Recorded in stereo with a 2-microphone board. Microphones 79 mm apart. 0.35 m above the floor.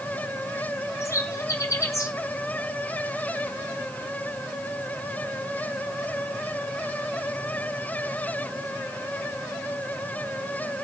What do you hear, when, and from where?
1.0 s a bird: 40° left (ahead or behind), 2.5 m